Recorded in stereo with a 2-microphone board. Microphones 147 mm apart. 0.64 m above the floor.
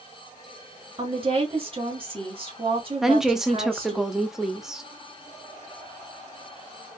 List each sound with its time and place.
1.0 s a woman speaking: 40° right (ahead or behind), 1.5 m
3.0 s a woman speaking: 5° right (ahead or behind), 0.6 m